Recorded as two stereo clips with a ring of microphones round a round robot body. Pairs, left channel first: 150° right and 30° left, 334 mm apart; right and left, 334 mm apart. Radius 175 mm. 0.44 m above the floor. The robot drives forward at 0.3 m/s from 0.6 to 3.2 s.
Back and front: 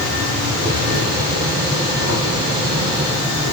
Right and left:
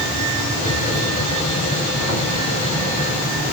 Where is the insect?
10° right, 2 m; by 3.5 s 20° right, 1.8 m.